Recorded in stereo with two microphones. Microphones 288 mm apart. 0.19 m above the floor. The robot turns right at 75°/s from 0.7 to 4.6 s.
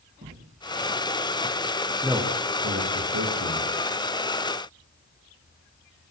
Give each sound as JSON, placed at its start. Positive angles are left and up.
{"t": 0.2, "sound": "footsteps", "side_deg": -40, "distance_m": 3.5}
{"t": 2.0, "sound": "a man speaking", "side_deg": 0, "distance_m": 8.5}